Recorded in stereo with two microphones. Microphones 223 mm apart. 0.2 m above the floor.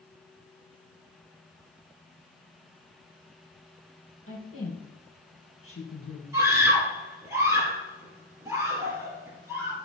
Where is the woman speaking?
65° left (ahead or behind), 5.5 m.